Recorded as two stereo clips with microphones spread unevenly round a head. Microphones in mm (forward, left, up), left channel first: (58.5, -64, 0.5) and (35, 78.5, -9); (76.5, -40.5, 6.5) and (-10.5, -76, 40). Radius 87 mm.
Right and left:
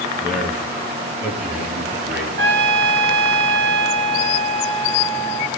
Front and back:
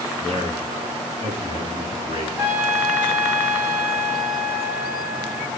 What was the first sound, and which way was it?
A man speaking, 145° left.